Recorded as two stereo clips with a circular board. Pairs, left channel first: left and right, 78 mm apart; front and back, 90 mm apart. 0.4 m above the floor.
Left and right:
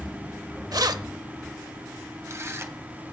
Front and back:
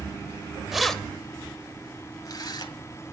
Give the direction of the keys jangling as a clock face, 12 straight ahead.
3 o'clock.